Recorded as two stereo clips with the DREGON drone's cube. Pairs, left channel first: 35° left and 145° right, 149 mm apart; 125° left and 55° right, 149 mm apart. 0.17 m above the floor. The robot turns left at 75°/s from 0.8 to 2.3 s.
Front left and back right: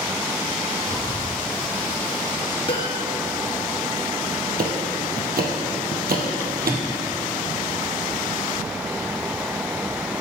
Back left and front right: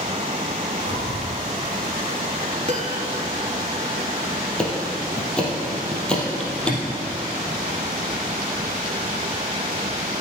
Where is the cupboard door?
115° right, 1.4 m.